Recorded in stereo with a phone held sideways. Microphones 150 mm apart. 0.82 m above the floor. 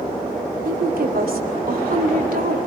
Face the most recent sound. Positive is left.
turn(degrees=-75)  # may be behind; listen again after turning